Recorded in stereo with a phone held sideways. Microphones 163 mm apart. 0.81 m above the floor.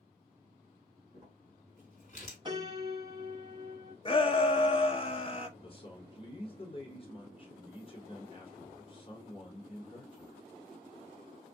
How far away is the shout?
About 0.7 m.